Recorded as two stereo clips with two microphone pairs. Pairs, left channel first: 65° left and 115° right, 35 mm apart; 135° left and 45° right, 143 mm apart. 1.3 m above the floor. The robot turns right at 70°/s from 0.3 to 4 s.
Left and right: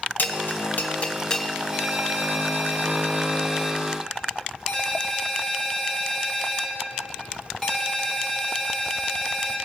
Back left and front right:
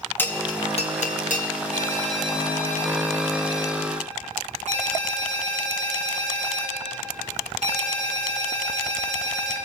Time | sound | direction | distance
0.2 | a bell | 60° left | 0.8 m
1.7 | a ringtone | 170° right | 1.9 m